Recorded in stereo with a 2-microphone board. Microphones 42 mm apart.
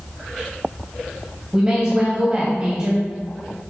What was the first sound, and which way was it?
A woman speaking, 25° right (ahead or behind).